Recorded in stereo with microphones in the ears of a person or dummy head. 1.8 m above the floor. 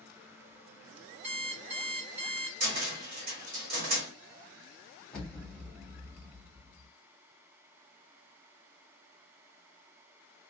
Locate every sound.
1.2 s an alarm clock: 45° right (ahead or behind), 1.6 m
2.6 s a cupboard door: 50° right (ahead or behind), 1.2 m
5.1 s an explosion: 5° left (ahead or behind), 0.9 m